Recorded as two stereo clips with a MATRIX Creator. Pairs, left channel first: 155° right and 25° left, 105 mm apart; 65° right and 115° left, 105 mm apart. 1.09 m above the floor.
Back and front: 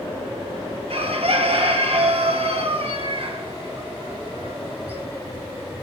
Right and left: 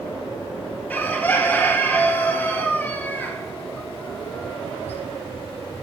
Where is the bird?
5° left, 1.6 m.